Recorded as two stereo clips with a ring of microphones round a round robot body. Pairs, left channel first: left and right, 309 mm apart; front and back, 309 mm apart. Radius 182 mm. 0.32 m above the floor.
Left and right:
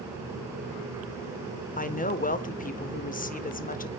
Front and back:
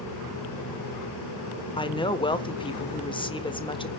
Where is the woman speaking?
60° left, 1.4 m.